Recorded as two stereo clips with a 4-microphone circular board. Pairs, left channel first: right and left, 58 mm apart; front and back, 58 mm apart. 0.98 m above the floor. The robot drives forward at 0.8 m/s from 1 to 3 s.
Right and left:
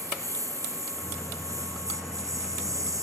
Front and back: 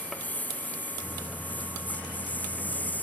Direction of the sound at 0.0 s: 65° left.